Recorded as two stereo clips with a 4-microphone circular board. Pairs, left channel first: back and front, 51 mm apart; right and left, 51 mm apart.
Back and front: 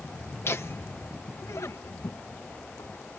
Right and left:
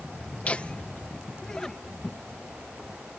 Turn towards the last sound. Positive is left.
turn(degrees=180)